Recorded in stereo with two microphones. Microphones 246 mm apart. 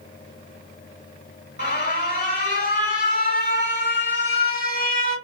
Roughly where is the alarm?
Left.